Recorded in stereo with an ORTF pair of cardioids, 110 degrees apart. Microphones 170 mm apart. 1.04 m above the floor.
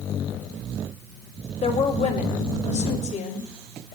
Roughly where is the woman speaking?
Ahead left.